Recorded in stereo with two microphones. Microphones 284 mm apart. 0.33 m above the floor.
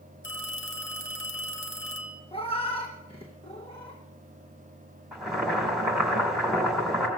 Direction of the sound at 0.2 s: 45° left (ahead or behind).